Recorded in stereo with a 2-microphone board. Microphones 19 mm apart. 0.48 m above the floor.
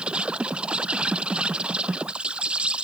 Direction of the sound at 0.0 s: 80° right.